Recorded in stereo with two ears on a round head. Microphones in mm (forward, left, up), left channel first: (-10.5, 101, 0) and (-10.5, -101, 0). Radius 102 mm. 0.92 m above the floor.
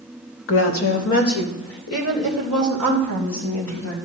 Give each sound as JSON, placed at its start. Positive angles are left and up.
{"t": 0.5, "sound": "a woman speaking", "side_deg": 60, "distance_m": 1.4}